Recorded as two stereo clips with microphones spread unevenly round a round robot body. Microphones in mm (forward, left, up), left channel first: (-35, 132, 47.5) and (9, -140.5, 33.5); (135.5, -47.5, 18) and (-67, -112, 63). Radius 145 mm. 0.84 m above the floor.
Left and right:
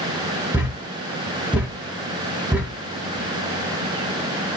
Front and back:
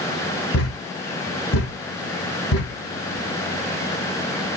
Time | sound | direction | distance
0.5 | a thud | 5° left | 2.5 m